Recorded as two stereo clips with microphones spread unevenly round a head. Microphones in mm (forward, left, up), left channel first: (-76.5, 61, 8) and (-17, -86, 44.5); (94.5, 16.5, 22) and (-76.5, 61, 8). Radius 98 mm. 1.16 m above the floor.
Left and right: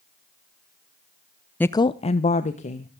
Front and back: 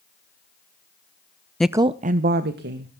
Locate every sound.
1.6 s a woman speaking: 75° left, 0.5 m; by 2.9 s 150° left, 1.7 m